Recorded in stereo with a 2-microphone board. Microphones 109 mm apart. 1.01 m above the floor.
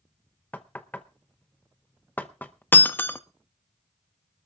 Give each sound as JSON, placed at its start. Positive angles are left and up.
{"t": 0.5, "sound": "knocking", "side_deg": 15, "distance_m": 0.7}
{"t": 2.7, "sound": "breaking glass", "side_deg": 20, "distance_m": 0.7}